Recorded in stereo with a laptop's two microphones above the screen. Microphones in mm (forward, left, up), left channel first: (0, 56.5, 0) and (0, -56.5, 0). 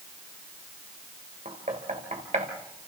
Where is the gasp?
I don't hear a gasp.